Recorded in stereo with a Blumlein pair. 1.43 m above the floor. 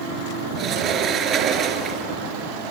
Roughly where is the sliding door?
Ahead right.